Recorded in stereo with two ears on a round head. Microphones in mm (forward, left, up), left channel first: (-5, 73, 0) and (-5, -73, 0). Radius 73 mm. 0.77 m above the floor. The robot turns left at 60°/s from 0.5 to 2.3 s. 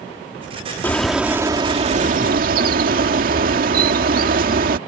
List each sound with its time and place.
0.8 s a bird: 15° left; by 4.8 s 75° right